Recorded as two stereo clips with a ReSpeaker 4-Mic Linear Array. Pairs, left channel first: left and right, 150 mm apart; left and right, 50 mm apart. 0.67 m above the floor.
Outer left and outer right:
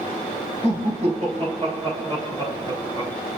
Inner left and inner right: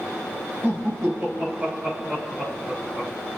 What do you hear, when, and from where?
0.6 s laughter: 55° right (ahead or behind), 4 m; by 3.1 s 25° right (ahead or behind), 4 m